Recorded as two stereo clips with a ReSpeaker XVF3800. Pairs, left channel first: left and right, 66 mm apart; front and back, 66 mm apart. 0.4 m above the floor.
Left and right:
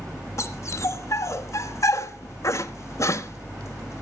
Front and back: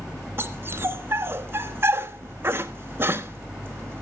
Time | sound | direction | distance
0.4 | a dog barking | 125° left | 1.0 m